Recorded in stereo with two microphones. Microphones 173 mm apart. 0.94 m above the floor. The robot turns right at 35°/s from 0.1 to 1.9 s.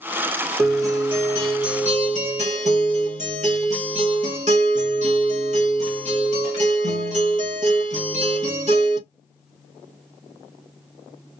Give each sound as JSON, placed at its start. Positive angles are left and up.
{"t": 0.6, "sound": "a guitar", "azimuth_deg": -165, "distance_m": 1.2}